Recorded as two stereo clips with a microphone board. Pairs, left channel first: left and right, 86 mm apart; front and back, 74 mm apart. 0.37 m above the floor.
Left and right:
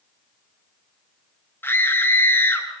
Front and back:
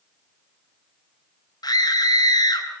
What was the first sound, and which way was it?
A scream, 25° left.